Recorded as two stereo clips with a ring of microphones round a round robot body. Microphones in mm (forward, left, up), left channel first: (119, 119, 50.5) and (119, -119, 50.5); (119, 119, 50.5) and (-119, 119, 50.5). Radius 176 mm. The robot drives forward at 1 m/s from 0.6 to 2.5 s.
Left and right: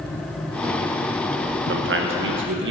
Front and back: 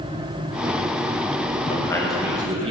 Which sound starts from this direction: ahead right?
A man speaking, at 1.7 s.